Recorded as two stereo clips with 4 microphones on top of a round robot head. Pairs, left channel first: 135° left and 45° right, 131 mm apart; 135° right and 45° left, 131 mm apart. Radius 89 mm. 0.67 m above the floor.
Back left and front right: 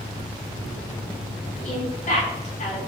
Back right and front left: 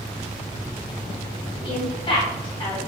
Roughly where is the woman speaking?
Behind.